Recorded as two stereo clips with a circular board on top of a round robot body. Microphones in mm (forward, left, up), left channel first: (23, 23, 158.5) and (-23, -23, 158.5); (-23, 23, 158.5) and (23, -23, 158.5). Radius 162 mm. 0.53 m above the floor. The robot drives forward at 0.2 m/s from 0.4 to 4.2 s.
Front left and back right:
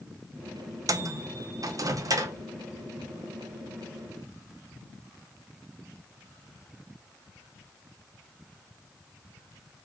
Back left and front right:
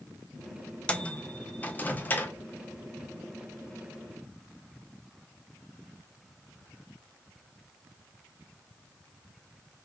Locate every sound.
0.9 s a microwave: 155° right, 0.6 m; by 2.4 s 165° right, 0.8 m